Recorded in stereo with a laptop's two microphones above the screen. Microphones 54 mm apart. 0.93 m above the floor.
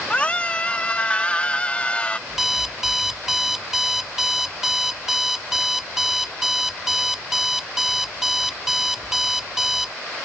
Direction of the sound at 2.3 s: 5° right (ahead or behind).